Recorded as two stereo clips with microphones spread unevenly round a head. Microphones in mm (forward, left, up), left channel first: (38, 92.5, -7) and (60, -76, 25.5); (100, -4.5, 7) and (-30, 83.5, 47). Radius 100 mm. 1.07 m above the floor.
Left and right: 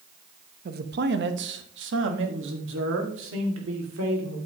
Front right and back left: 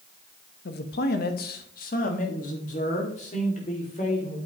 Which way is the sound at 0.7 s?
45° right.